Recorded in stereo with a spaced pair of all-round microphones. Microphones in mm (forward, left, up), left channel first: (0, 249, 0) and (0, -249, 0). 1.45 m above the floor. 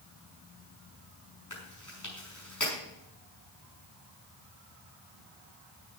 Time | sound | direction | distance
1.5 | chewing | 35° left (ahead or behind) | 6 m